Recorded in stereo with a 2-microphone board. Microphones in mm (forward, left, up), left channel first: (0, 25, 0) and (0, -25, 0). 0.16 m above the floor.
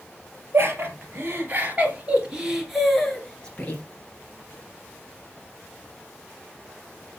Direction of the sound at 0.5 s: 50° right (ahead or behind).